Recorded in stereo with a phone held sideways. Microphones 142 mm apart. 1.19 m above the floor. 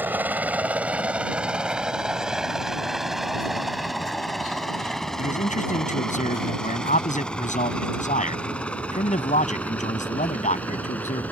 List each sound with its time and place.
0.0 s a helicopter: 15° right (ahead or behind); by 11.3 s 10° left (ahead or behind)
5.2 s a man speaking: 65° left (ahead or behind)